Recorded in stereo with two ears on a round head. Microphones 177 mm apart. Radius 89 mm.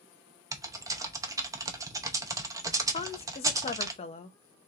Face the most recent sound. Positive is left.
turn(degrees=30)  # may be behind; listen again after turning